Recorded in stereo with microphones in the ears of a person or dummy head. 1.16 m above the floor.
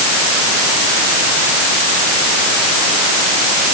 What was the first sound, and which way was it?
Only background noise.